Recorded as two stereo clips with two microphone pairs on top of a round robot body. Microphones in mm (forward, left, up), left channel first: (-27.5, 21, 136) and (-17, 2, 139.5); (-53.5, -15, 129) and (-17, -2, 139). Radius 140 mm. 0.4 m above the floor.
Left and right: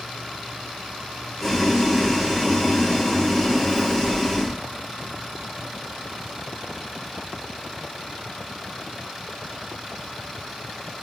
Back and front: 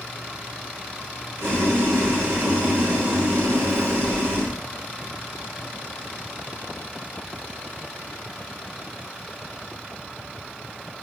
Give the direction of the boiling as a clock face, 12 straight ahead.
11 o'clock.